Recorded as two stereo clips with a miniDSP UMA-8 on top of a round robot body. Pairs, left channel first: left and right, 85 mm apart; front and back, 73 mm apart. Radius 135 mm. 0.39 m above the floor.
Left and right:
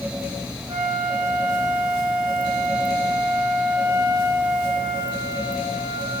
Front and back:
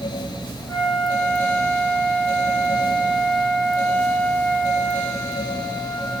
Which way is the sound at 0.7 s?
60° right.